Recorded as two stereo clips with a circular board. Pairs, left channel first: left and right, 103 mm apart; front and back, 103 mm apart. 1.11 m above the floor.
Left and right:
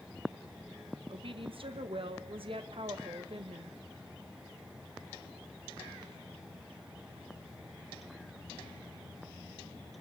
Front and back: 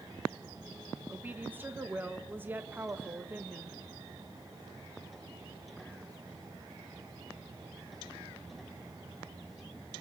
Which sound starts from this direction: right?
A woman speaking, at 1.1 s.